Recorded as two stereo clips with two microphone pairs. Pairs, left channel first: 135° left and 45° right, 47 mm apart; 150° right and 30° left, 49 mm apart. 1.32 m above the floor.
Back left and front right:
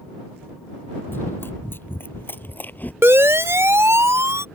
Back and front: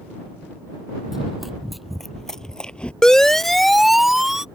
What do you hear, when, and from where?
1.1 s running footsteps: 110° left; by 2.9 s 155° left
3.0 s a siren: 75° right; by 4.5 s 50° right